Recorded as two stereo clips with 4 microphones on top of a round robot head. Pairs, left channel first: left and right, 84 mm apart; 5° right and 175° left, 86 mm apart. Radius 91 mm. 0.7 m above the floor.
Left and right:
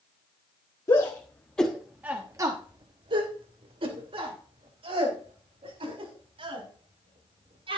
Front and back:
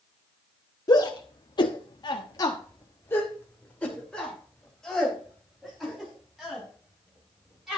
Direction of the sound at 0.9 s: 40° left.